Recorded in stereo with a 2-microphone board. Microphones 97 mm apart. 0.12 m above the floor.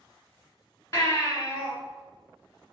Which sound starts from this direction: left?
A baby crying, at 0.9 s.